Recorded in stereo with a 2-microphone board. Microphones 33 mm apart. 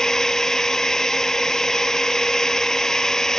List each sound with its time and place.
0.0 s a drone: 15° left (ahead or behind)